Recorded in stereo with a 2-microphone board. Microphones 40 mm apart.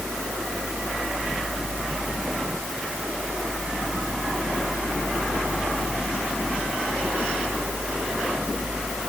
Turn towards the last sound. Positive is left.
No sound to turn to.